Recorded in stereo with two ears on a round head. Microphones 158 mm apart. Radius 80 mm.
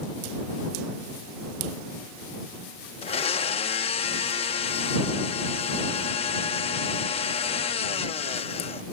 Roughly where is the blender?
Left.